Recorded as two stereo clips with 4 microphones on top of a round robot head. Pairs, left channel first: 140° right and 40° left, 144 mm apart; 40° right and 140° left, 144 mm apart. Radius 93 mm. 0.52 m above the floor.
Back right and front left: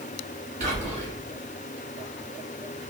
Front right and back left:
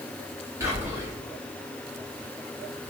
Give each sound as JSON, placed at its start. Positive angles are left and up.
{"t": 0.6, "sound": "whispering", "azimuth_deg": 70, "distance_m": 1.4}